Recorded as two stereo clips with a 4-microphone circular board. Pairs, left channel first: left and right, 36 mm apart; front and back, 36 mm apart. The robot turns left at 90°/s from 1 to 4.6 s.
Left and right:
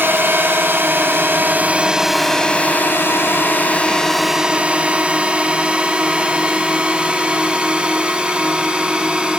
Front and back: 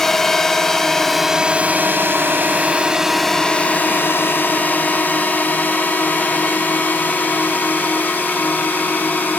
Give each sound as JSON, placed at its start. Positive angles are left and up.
{"t": 0.0, "sound": "a drone", "azimuth_deg": -75}